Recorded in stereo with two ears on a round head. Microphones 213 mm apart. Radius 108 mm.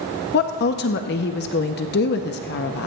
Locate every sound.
0.3 s a woman speaking: 45° left (ahead or behind), 0.6 m